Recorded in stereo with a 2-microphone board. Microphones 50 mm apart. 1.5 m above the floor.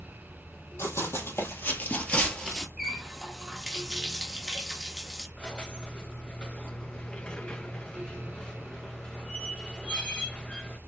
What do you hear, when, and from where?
0.8 s running footsteps: 60° left (ahead or behind), 3 m; by 2.7 s 5° left (ahead or behind), 1.8 m
2.8 s a running tap: 5° right (ahead or behind), 1.2 m
5.4 s a squeak: 15° left (ahead or behind), 0.7 m